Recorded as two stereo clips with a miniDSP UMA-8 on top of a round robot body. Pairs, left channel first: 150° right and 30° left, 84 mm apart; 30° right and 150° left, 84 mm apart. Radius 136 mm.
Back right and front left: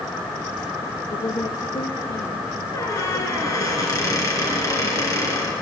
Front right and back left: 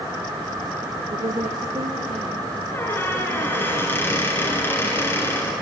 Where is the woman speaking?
175° left, 1.5 m.